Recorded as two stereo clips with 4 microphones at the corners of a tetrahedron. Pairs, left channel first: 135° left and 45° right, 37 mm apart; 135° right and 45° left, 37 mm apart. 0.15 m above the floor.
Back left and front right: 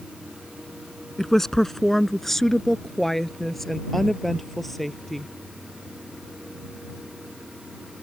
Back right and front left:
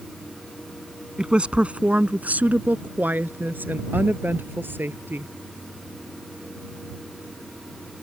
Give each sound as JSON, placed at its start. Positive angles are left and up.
{"t": 1.2, "sound": "a woman speaking", "azimuth_deg": 65}